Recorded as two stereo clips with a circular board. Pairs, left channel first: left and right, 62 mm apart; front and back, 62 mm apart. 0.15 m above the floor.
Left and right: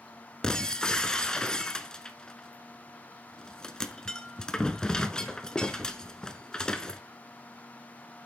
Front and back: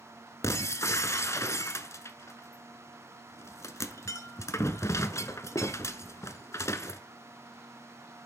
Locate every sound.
0.4 s breaking glass: 15° left, 0.7 m